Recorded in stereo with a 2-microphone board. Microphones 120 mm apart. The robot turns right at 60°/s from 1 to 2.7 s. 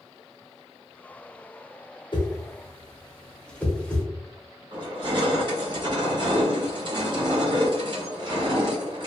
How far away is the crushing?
About 1.0 m.